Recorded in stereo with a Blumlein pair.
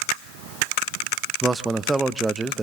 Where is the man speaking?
10° right, 0.7 m.